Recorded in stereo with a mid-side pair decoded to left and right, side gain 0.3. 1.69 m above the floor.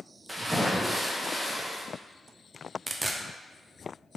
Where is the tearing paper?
30° right, 0.5 m.